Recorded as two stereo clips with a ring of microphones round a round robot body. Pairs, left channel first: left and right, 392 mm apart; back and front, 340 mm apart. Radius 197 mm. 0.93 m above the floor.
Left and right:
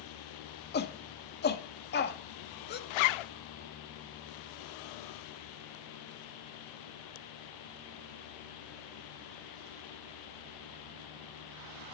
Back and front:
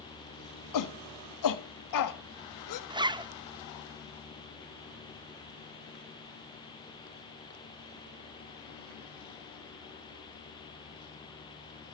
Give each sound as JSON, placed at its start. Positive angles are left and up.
{"t": 0.7, "sound": "a shout", "azimuth_deg": 155, "distance_m": 1.7}
{"t": 2.9, "sound": "a zipper", "azimuth_deg": 80, "distance_m": 0.7}